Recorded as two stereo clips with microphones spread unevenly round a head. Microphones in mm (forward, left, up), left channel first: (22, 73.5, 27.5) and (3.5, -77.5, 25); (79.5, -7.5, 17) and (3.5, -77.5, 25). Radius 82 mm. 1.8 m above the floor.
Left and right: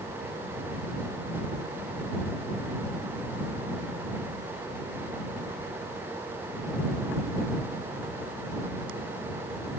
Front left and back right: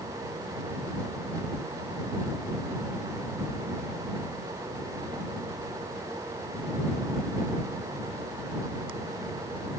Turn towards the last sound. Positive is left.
No sound to turn to.